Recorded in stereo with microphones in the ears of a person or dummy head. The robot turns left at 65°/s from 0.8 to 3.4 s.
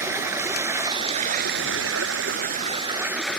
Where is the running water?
15° right; by 3.4 s 175° left.